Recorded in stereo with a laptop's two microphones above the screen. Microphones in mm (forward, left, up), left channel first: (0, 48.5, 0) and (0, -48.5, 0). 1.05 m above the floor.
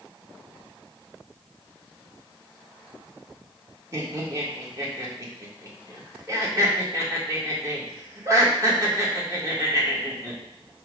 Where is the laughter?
35° right (ahead or behind), 1.5 m.